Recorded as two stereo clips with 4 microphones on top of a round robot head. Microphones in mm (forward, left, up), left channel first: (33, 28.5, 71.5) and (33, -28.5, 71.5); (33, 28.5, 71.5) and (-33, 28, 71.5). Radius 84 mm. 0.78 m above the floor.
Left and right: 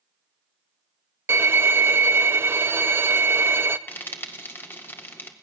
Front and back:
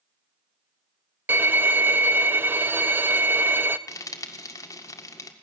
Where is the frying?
40° left, 1.9 m.